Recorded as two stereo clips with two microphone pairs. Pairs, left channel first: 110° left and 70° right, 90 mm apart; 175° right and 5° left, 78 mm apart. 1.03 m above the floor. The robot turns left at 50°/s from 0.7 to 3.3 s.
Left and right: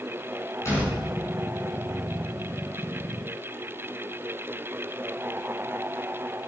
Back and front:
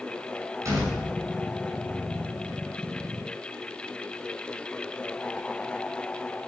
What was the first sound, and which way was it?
A door slam, 55° left.